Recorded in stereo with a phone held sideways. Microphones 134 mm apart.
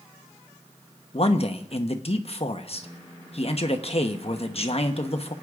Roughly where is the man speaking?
Left.